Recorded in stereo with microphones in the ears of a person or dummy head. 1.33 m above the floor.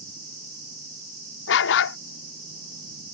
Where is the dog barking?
60° left (ahead or behind).